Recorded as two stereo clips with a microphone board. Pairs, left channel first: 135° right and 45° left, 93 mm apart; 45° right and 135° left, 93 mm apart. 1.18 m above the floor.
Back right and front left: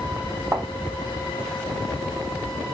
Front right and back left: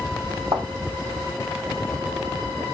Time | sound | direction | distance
0.5 | a thud | 115° left | 1.9 m